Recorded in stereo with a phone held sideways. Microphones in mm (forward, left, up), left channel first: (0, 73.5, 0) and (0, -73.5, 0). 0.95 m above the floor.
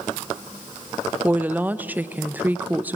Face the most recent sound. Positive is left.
turn(degrees=-10)  # may be behind; listen again after turning